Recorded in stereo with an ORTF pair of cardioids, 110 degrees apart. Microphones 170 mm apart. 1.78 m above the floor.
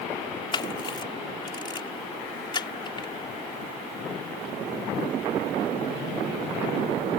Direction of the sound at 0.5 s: 30° left.